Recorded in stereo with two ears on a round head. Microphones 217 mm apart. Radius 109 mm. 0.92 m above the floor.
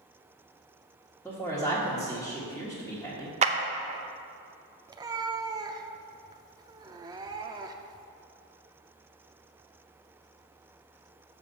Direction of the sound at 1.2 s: 5° left (ahead or behind).